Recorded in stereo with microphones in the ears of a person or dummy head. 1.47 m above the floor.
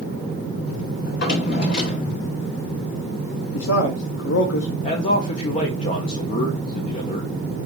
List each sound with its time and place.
1.0 s a drawer: 55° left (ahead or behind), 1.8 m
3.5 s a man speaking: 70° left (ahead or behind), 0.7 m
4.8 s a man speaking: 35° left (ahead or behind), 0.7 m